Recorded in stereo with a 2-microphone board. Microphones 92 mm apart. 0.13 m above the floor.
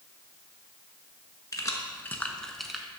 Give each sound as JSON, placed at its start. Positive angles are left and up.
{"t": 1.5, "sound": "keys jangling", "side_deg": 40, "distance_m": 0.9}